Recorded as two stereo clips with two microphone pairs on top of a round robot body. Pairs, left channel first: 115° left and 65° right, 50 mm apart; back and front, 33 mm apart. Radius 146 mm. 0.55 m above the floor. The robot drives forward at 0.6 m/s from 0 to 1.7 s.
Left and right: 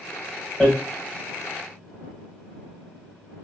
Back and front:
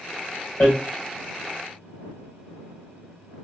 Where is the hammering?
160° right, 1.5 m.